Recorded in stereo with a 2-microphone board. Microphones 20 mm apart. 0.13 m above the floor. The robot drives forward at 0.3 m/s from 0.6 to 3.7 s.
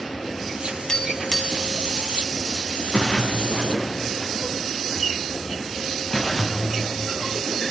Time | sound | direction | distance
0.9 | tapping | 35° left (ahead or behind) | 2.5 m
2.9 | a splash | 35° left (ahead or behind) | 5 m